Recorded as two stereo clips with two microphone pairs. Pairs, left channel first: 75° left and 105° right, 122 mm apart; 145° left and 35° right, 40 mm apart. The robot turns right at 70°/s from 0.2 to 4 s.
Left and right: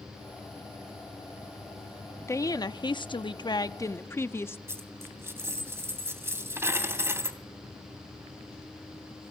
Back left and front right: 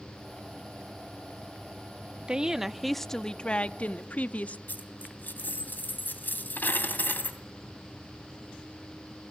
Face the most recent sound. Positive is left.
turn(degrees=-175)